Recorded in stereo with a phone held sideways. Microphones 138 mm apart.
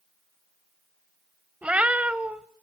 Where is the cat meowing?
10° right (ahead or behind), 1.1 m.